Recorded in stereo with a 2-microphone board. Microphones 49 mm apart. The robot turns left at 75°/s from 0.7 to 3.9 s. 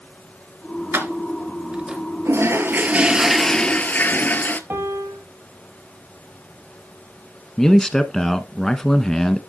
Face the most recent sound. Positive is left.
turn(degrees=10)  # may be behind; listen again after turning